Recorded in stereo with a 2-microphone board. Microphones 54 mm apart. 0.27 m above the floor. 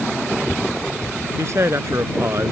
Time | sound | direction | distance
1.4 | a man speaking | 55° right (ahead or behind) | ?